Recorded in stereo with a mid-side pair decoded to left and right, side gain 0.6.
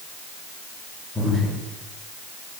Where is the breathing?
15° left, 6 m.